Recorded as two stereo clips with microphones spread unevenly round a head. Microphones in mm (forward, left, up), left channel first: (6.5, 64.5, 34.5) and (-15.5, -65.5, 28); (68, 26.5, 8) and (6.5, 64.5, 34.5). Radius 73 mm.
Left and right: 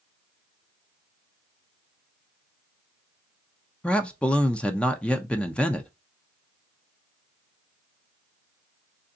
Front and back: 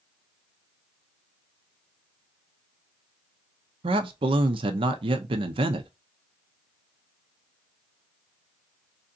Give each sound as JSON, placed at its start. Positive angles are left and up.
{"t": 3.8, "sound": "a man speaking", "azimuth_deg": 165, "distance_m": 0.5}